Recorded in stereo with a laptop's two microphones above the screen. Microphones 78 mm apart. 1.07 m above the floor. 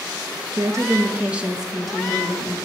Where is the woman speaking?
50° right (ahead or behind), 0.5 m; by 2.5 s 10° left (ahead or behind), 1.2 m.